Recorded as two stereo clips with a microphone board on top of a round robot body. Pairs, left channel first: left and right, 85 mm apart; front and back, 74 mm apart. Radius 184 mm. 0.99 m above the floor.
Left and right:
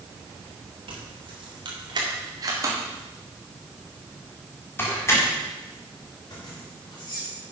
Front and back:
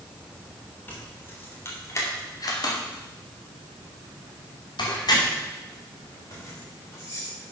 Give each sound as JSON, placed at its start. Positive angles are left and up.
{"t": 0.9, "sound": "keys jangling", "azimuth_deg": -65, "distance_m": 3.0}